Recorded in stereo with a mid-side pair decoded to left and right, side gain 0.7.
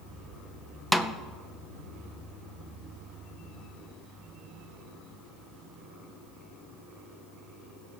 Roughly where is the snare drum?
Ahead.